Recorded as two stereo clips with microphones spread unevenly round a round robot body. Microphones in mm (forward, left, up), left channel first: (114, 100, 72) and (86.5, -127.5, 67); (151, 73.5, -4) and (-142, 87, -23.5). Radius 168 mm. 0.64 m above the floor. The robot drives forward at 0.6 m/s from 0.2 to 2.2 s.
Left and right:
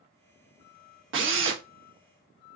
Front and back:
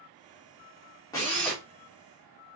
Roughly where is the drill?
Right.